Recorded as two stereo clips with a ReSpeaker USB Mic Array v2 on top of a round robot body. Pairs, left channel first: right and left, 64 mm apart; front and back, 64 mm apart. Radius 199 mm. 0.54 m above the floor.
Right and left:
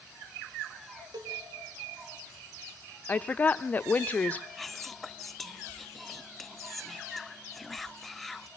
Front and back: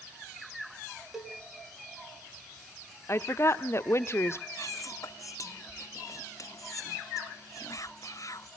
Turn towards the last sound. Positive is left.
turn(degrees=0)